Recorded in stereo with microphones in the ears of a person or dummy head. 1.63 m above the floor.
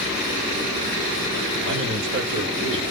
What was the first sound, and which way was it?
A man speaking, 60° right (ahead or behind).